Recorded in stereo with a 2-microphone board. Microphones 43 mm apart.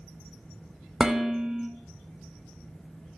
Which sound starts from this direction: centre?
Dishes clattering, at 1.0 s.